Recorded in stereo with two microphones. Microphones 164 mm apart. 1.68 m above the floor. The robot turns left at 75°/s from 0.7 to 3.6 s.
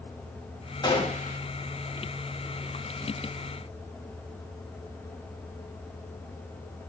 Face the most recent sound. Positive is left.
turn(degrees=-55)